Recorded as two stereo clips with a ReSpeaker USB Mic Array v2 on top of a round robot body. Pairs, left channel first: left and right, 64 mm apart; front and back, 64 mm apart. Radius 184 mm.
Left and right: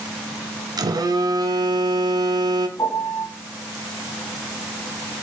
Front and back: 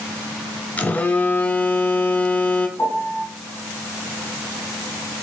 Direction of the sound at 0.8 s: 70° right.